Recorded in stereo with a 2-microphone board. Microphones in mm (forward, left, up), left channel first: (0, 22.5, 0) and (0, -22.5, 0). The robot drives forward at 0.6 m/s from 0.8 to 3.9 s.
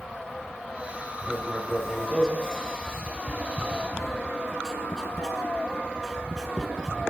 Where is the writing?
5° right (ahead or behind), 9 m; by 6.9 s 10° right (ahead or behind), 7.5 m.